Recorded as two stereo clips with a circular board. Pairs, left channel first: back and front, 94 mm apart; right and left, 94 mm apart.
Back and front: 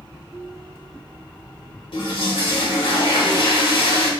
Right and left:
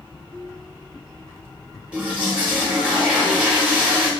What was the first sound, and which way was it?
A toilet flushing, 165° left.